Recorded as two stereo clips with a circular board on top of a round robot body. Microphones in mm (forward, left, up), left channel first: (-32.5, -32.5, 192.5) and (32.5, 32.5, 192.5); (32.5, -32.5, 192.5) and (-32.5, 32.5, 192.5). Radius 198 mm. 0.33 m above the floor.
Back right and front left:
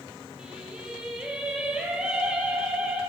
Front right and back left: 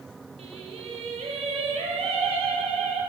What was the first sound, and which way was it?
Singing, 125° left.